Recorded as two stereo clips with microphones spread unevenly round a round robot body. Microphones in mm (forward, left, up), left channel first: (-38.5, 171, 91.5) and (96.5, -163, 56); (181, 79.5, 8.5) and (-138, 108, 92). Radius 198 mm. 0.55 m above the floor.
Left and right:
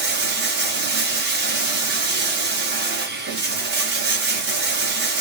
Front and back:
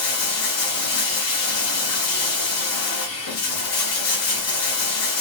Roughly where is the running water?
Ahead.